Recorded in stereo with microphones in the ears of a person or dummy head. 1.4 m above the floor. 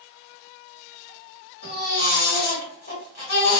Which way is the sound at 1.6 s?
50° left (ahead or behind).